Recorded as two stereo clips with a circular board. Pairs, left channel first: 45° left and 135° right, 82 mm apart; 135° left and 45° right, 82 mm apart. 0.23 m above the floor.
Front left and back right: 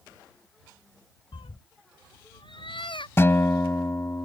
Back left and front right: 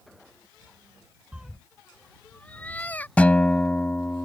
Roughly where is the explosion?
I don't hear an explosion.